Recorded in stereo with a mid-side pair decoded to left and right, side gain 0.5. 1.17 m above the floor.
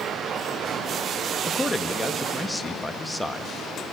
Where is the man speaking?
10° left, 1.9 m.